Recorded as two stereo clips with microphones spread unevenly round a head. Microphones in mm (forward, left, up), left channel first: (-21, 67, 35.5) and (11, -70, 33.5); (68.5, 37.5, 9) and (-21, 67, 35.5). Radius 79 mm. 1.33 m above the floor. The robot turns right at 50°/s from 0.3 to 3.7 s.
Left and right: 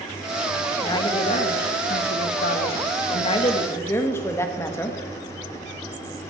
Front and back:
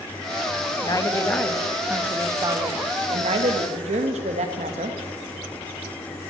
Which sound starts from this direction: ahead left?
A woman speaking, at 0.8 s.